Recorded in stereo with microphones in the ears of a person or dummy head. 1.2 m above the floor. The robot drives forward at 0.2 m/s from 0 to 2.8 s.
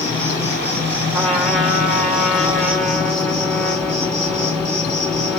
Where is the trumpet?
10° left (ahead or behind), 1.9 m; by 5.4 s 5° left (ahead or behind), 2 m.